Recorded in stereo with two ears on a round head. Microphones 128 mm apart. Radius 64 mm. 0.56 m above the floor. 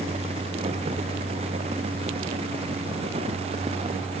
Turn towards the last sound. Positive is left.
No sound to turn to.